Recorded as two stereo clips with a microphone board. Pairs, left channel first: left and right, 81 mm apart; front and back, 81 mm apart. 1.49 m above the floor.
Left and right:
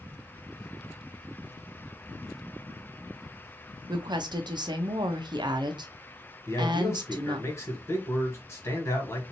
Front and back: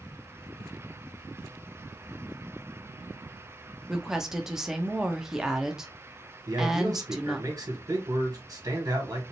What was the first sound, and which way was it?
A woman speaking, 95° right.